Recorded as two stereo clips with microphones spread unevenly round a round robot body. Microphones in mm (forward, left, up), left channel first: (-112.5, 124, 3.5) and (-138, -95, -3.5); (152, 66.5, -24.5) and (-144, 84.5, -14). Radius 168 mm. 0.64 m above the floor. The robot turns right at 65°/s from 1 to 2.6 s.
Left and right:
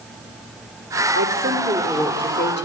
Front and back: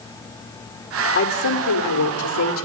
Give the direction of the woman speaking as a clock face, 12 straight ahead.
2 o'clock.